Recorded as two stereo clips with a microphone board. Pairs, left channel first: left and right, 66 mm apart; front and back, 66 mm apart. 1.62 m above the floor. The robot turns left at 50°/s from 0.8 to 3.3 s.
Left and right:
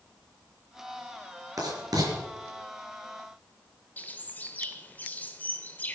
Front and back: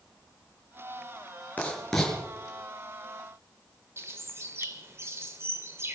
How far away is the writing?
About 5 m.